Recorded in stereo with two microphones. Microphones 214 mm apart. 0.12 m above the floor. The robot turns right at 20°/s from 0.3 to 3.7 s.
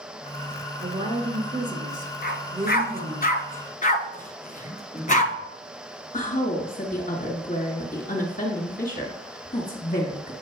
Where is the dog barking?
50° left (ahead or behind), 0.8 m; by 5.3 s 40° left (ahead or behind), 0.8 m.